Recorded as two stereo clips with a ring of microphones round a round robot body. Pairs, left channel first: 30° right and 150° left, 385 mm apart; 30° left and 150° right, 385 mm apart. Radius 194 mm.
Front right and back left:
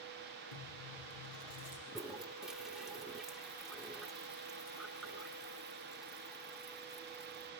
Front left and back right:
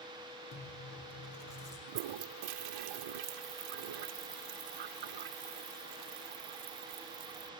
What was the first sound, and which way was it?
Chewing, 25° right.